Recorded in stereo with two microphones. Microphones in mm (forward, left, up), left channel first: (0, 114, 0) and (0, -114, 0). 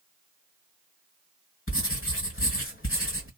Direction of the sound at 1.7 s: 65° left (ahead or behind).